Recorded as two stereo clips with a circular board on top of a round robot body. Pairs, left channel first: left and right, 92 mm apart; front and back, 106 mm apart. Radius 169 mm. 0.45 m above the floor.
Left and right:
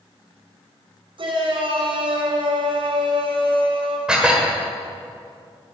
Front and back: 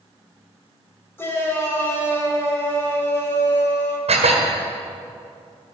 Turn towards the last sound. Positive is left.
turn(degrees=-170)